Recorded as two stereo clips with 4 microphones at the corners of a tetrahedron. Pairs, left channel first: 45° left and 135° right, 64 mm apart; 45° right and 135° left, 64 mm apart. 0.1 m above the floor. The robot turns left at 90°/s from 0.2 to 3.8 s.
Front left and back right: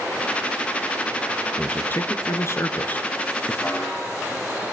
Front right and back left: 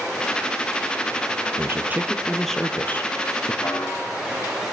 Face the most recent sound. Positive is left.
turn(degrees=-55)